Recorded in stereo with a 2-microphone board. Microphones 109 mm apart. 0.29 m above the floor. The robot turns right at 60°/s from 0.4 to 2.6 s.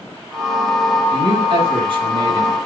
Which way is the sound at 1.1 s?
125° right.